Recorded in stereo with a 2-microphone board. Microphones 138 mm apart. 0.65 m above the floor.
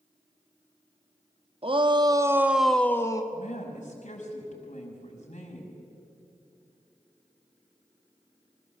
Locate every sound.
1.6 s a shout: 45° right (ahead or behind), 1.4 m; by 3.2 s 25° left (ahead or behind), 1.1 m
3.3 s a woman speaking: 65° left (ahead or behind), 5.5 m